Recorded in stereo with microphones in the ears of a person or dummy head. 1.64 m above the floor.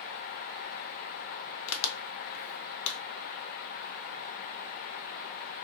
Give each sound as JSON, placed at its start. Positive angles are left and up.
{"t": 1.7, "sound": "a crack", "side_deg": 65, "distance_m": 0.5}